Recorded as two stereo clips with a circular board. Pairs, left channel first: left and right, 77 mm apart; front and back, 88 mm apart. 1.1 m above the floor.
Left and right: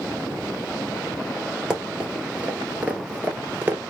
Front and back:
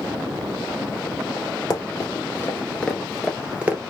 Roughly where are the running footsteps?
Ahead.